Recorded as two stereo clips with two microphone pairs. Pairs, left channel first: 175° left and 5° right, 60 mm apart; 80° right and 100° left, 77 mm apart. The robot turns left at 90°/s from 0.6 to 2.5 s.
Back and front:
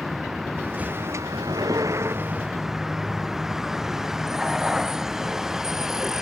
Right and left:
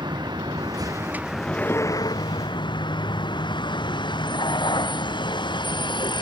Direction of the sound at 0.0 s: 80° left.